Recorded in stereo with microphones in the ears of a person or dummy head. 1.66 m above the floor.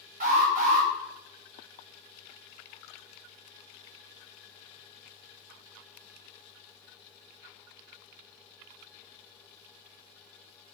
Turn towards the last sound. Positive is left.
turn(degrees=-45)  # may be behind; listen again after turning